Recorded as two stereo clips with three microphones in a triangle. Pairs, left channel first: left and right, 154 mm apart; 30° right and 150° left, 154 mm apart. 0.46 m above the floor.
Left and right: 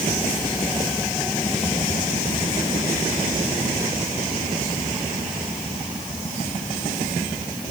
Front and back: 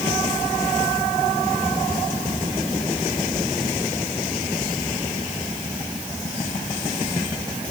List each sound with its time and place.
Only background noise.